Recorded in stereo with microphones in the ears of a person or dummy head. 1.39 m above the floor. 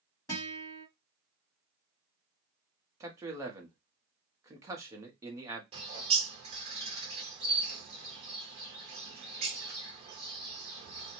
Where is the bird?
35° right (ahead or behind), 0.9 m.